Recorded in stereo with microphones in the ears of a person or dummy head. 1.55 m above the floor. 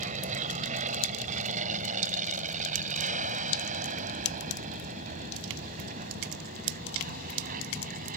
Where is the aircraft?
40° right (ahead or behind); by 8.2 s 45° right (ahead or behind).